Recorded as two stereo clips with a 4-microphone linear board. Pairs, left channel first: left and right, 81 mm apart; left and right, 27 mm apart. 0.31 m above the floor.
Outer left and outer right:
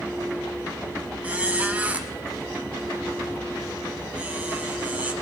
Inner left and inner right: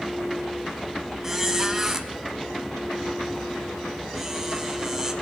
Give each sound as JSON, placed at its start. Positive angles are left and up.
{"t": 1.2, "sound": "a squeak", "side_deg": -20, "distance_m": 0.9}